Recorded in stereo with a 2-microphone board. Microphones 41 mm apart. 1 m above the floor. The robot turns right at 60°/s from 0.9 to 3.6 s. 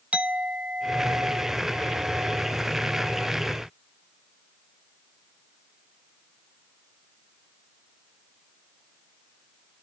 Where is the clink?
145° right, 0.7 m; by 3.3 s 5° right, 0.7 m.